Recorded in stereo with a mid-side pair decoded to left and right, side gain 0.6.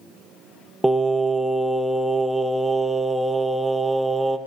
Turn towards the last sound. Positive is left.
turn(degrees=-10)